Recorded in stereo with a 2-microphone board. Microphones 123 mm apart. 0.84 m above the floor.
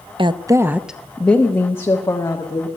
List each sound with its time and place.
0.2 s a woman speaking: 45° right (ahead or behind), 0.6 m; by 2.7 s 30° left (ahead or behind), 1.7 m